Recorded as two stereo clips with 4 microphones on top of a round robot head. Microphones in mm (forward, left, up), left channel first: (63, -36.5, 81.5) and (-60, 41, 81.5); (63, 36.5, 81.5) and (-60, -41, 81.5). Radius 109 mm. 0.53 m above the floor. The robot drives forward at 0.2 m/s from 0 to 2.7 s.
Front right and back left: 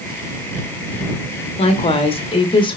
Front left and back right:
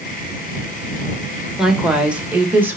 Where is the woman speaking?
60° right, 1.2 m; by 2.8 s 75° right, 1.2 m.